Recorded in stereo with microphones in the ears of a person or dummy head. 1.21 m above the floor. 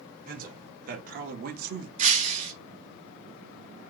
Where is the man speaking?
45° right (ahead or behind), 1.4 m; by 1.9 s 50° right (ahead or behind), 0.7 m.